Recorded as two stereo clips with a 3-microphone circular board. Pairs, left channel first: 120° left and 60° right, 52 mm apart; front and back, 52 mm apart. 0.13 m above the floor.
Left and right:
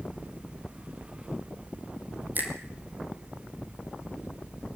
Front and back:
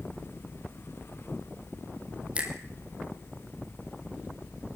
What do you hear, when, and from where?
2.4 s a finger snap: 115° right, 4 m